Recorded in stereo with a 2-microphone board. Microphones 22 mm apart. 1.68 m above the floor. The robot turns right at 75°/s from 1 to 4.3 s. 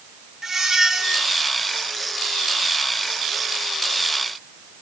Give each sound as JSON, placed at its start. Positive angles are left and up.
{"t": 0.4, "sound": "a squeak", "side_deg": -20, "distance_m": 0.6}